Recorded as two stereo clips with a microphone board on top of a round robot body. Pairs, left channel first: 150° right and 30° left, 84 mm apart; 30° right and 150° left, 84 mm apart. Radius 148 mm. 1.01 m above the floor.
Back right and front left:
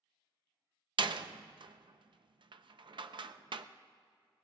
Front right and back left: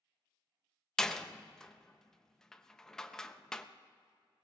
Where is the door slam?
55° left, 0.6 m.